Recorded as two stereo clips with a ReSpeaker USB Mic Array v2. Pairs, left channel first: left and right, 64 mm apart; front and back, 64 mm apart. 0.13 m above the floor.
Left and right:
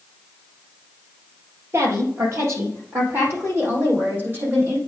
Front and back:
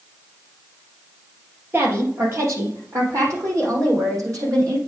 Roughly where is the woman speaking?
Behind right.